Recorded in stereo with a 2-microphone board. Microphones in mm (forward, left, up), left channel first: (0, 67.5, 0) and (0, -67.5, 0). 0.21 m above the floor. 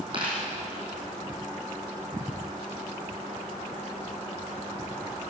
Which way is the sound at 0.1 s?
40° right (ahead or behind).